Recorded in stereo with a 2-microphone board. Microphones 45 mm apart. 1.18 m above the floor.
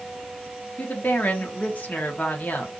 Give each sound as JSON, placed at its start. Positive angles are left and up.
{"t": 0.8, "sound": "a woman speaking", "side_deg": 35, "distance_m": 1.0}